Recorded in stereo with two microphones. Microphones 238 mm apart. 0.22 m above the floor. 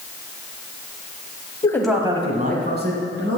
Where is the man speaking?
20° left (ahead or behind), 1.1 m; by 3.4 s 50° right (ahead or behind), 3 m.